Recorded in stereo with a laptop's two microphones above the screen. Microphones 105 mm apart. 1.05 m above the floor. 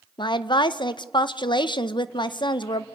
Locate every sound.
0.2 s a woman speaking: 50° left (ahead or behind), 0.6 m